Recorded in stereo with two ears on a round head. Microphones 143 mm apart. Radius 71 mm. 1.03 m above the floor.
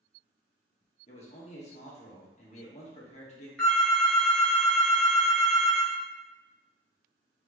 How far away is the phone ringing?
About 1.6 m.